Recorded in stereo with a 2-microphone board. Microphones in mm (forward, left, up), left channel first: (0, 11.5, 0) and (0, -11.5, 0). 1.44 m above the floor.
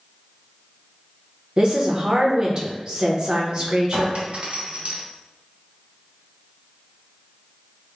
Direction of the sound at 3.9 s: 55° right (ahead or behind).